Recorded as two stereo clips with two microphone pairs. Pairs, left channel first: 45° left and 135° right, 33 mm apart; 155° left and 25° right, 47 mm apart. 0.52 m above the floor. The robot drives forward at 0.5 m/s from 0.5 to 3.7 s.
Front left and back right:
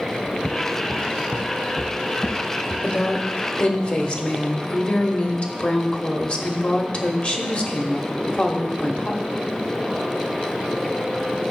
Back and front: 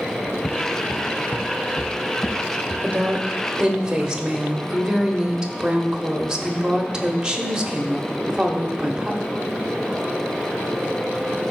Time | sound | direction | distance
0.2 | footsteps | 170° left | 1.0 m
2.8 | a woman speaking | 25° left | 1.3 m